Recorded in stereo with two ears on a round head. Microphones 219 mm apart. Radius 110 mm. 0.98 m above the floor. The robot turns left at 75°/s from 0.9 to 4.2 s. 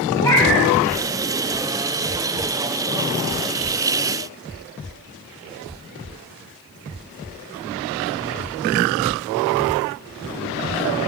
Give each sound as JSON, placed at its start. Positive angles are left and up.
{"t": 0.2, "sound": "a cat meowing", "side_deg": 10, "distance_m": 2.5}